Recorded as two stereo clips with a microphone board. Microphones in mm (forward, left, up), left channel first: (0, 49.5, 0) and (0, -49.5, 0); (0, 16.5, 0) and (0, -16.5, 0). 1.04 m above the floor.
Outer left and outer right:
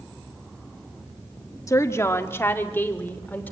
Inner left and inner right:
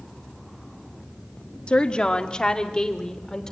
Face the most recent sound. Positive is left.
turn(degrees=15)  # may be behind; listen again after turning